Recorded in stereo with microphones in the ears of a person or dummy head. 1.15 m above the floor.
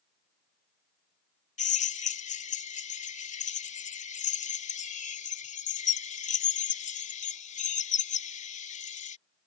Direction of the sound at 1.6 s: 35° left (ahead or behind).